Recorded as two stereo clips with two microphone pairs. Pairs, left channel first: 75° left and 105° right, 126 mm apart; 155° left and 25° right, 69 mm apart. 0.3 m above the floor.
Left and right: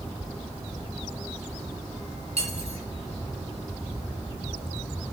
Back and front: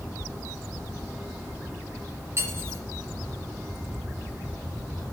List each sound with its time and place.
2.4 s cutlery clinking: 75° right, 2.5 m